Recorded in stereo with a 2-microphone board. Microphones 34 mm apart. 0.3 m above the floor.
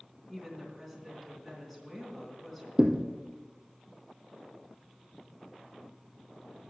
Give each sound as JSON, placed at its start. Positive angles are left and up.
{"t": 0.3, "sound": "a woman speaking", "side_deg": 5, "distance_m": 3.5}
{"t": 2.8, "sound": "a thud", "side_deg": -30, "distance_m": 1.3}